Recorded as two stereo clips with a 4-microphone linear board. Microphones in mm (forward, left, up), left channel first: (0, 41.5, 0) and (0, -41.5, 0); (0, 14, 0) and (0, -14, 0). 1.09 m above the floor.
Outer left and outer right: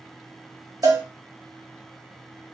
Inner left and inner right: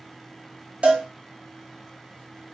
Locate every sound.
0.8 s a cowbell: 50° right (ahead or behind), 1.0 m